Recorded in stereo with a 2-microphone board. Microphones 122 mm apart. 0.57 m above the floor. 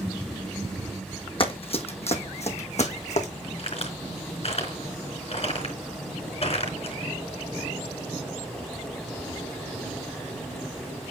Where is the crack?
55° left (ahead or behind), 4 m.